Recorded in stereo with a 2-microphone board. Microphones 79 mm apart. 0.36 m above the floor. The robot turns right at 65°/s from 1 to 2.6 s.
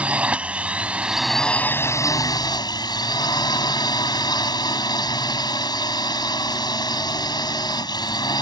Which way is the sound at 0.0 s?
15° right.